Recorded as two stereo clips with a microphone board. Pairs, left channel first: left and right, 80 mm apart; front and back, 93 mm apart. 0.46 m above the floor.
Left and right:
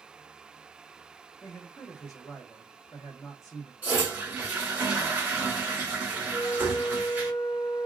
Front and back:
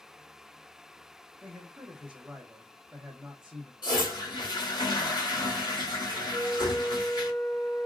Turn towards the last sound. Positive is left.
turn(degrees=45)